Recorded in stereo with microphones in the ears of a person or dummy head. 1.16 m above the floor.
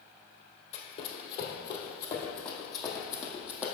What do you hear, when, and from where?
0.7 s running footsteps: 45° left (ahead or behind), 1.6 m; by 3.6 s 15° left (ahead or behind), 2 m